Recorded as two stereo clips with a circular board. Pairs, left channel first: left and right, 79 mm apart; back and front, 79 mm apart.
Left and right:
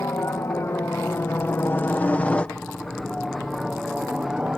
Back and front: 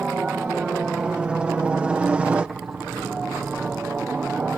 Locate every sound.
0.0 s a helicopter: 70° left; by 4.6 s 45° right